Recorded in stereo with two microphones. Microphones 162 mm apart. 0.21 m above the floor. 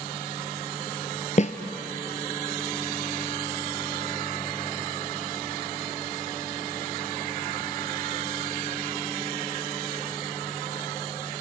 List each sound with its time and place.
1.4 s a snare drum: 45° left (ahead or behind), 1.4 m